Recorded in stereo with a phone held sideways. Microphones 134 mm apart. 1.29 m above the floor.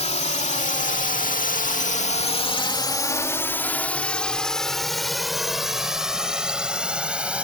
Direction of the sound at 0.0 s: 55° left (ahead or behind).